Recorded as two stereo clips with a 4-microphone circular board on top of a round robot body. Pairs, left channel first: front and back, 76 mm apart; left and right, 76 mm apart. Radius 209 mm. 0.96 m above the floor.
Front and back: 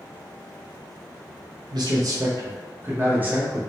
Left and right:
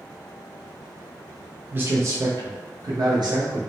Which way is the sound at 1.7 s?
155° right.